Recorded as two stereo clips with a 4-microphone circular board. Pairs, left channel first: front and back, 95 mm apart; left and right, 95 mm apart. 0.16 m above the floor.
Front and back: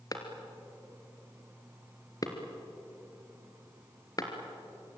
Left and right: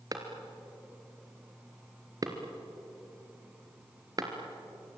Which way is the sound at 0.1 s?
45° right.